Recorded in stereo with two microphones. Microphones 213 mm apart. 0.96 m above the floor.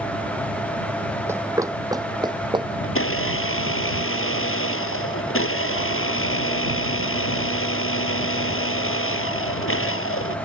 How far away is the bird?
I don't hear a bird.